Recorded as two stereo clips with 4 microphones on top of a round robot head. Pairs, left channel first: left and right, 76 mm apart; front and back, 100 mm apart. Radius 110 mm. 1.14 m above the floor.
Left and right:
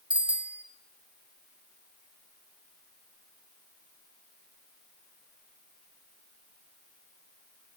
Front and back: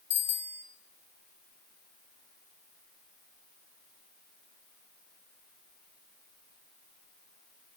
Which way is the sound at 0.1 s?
15° right.